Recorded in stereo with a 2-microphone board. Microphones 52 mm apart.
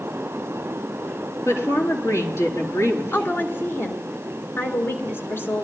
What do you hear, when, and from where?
1.4 s a woman speaking: 65° left (ahead or behind), 3.5 m
3.1 s a woman speaking: 45° left (ahead or behind), 2.5 m